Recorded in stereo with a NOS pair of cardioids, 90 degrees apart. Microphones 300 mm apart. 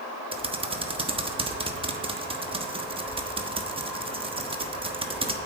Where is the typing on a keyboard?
20° right, 1.2 m.